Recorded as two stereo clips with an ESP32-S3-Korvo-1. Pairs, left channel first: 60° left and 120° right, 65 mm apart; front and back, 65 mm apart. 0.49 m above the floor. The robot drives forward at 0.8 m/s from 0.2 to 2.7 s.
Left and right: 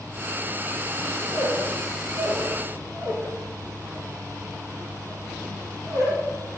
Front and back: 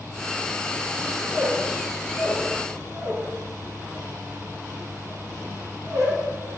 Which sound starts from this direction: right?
A squeak, at 1.2 s.